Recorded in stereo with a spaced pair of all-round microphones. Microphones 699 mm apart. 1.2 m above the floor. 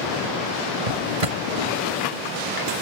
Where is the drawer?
60° right (ahead or behind).